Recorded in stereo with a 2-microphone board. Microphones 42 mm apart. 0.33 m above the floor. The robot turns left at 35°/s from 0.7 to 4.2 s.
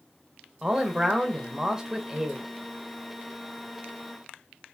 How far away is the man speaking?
About 0.9 m.